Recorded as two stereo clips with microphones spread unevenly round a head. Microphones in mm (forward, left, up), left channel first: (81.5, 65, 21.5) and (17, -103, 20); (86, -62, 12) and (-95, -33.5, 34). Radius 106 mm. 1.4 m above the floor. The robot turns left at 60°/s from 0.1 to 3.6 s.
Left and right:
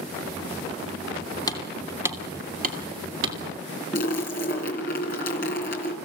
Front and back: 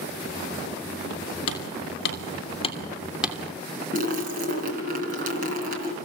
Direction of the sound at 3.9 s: 120° left.